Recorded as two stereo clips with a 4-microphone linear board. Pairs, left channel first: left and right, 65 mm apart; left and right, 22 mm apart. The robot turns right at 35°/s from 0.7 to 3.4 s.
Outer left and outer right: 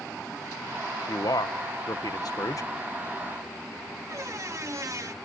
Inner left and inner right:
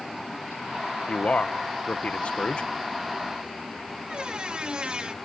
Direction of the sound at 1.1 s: 70° left.